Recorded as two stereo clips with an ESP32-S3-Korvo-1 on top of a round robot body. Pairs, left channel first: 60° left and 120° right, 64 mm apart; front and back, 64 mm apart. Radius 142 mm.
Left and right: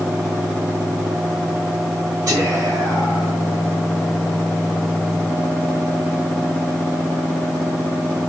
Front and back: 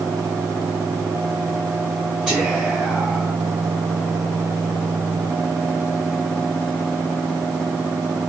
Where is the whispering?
85° right, 2.0 m.